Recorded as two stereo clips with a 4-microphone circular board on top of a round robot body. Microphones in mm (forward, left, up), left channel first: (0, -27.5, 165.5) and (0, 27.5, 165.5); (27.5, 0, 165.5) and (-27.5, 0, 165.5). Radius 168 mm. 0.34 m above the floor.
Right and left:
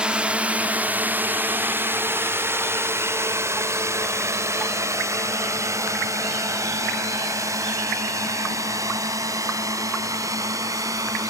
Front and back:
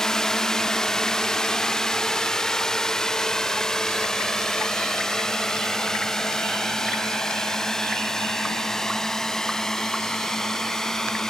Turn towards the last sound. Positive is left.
turn(degrees=80)